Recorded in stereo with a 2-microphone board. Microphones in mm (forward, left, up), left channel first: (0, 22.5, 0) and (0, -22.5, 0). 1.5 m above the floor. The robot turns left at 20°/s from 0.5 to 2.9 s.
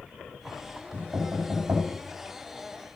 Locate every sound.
0.9 s knocking: 60° right (ahead or behind), 6.5 m; by 1.9 s 80° right, 6.5 m